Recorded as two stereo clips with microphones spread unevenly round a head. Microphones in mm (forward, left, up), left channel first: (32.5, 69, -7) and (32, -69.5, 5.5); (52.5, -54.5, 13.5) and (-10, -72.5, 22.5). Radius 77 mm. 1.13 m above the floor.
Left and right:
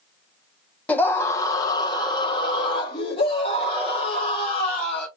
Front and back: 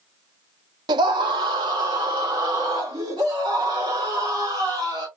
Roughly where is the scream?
Behind.